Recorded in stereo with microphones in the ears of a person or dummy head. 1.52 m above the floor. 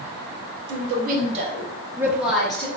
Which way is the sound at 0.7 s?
70° right (ahead or behind).